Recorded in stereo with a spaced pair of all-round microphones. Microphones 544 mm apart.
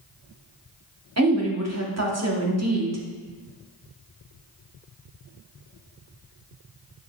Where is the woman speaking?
30° right (ahead or behind), 0.8 m.